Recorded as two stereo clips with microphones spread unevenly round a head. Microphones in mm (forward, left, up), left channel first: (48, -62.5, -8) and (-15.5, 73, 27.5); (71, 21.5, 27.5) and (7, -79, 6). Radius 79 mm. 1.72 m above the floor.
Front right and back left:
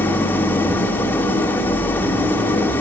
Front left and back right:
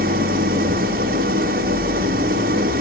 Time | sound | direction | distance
0.0 | an engine running | 145° right | 2.5 m